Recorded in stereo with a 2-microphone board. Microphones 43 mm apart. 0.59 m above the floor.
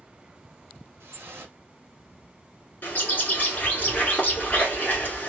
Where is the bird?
35° left (ahead or behind), 1.4 m.